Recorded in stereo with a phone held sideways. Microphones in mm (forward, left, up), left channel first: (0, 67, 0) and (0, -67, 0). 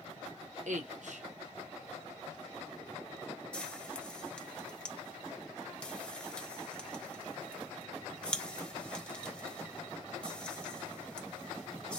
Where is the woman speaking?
65° right (ahead or behind), 1.0 m.